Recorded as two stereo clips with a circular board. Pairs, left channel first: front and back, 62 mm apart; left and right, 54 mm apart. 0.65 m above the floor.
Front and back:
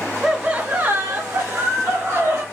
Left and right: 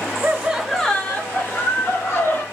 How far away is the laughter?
About 0.7 m.